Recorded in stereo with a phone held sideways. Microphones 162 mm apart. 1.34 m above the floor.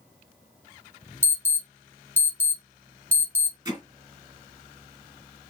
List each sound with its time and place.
1.2 s an alarm: 15° right (ahead or behind), 2 m
3.6 s hammering: 20° right (ahead or behind), 2.5 m